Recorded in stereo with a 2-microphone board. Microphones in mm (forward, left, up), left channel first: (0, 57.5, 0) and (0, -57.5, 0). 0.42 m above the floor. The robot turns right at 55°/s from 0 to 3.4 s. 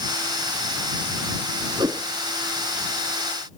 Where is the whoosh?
40° right (ahead or behind); by 2.1 s 25° right (ahead or behind).